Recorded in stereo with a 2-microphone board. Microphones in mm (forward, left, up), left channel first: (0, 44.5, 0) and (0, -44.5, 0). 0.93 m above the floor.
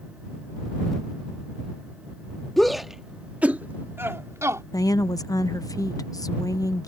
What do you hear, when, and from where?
2.6 s a shout: 5° left (ahead or behind); by 4.6 s 35° right (ahead or behind)
4.7 s a woman speaking: 45° left (ahead or behind)